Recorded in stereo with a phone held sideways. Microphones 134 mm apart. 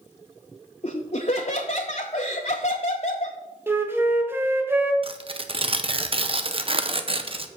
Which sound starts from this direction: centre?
A flute, at 3.7 s.